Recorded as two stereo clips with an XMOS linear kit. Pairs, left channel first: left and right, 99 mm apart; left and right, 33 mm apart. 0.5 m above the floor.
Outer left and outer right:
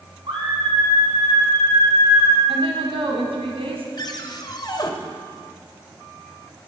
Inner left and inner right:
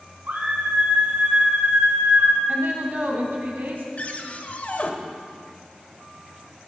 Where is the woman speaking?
75° right (ahead or behind), 3.5 m.